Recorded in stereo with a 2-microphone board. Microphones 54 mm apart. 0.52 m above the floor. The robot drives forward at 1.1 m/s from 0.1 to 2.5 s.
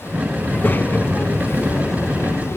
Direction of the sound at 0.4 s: 30° left (ahead or behind).